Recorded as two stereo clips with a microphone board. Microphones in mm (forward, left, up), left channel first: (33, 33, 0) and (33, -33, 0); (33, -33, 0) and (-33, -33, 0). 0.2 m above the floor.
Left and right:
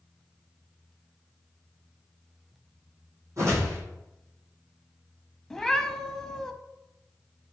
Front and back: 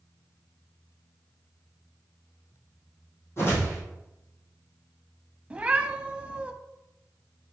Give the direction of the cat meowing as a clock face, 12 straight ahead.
7 o'clock.